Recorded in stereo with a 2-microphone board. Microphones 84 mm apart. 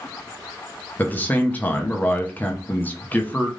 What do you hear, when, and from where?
1.0 s a man speaking: 20° left (ahead or behind), 0.7 m